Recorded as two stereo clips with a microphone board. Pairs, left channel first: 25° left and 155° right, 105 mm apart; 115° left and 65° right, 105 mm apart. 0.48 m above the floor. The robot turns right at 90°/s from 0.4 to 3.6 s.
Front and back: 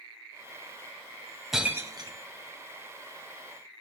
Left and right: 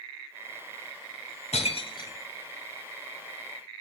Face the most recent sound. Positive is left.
turn(degrees=-60)